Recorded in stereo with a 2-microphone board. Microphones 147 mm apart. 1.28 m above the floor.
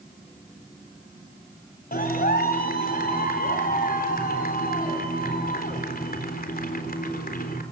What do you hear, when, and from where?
1.9 s a clap: 85° left, 4 m